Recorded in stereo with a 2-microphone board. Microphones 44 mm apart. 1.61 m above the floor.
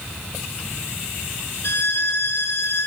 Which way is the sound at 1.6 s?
55° left (ahead or behind).